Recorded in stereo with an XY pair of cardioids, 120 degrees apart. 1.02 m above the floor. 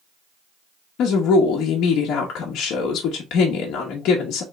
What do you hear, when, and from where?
1.0 s a woman speaking: 70° left, 1.0 m